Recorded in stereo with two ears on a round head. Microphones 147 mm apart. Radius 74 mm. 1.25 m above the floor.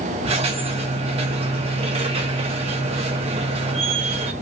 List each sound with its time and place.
0.2 s a squeak: 40° right (ahead or behind), 0.8 m